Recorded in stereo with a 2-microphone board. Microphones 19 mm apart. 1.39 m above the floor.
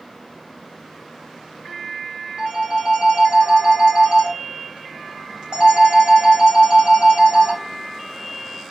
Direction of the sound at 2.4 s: 60° right (ahead or behind).